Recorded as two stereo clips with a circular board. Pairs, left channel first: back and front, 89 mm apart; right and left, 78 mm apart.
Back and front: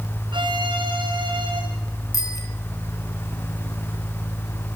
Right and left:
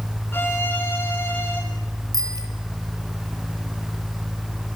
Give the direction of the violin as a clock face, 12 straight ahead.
1 o'clock.